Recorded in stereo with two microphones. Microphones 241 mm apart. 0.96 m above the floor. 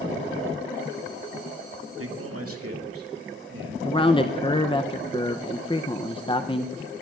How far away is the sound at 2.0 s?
About 1.8 m.